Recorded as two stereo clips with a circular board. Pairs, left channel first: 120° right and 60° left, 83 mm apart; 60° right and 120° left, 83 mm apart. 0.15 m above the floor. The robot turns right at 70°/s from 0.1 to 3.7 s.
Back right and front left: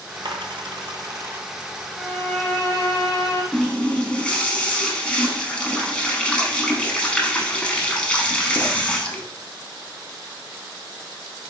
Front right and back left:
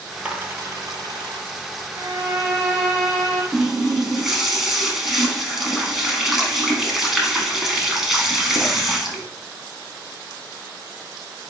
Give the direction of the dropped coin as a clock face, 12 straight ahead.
11 o'clock.